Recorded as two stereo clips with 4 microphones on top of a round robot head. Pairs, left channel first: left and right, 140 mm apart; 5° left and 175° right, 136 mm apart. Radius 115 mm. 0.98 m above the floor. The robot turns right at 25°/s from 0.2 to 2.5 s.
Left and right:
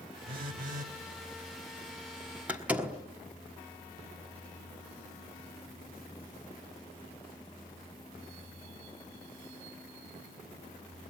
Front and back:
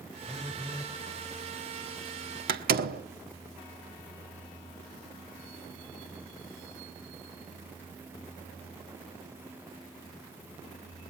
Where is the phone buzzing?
85° right, 1.5 m; by 0.9 s 70° right, 1.5 m.